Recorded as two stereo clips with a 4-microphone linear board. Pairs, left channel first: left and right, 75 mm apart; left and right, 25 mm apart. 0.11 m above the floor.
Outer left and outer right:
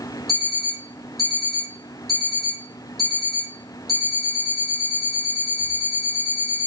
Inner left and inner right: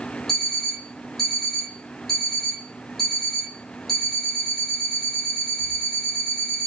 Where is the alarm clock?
5° left (ahead or behind), 2.5 m.